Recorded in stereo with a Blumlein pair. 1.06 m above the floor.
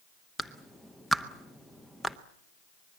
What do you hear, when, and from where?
0.4 s a clap: 5° left, 1.0 m